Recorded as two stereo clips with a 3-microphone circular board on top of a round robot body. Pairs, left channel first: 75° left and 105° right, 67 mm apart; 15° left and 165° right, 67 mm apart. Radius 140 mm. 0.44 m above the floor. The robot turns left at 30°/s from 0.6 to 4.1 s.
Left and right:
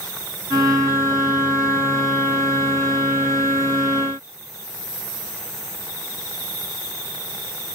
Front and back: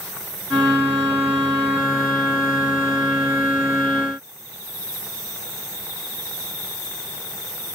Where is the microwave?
I don't hear a microwave.